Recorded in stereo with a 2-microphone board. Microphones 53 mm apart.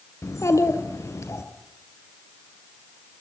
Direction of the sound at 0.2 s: 65° left (ahead or behind).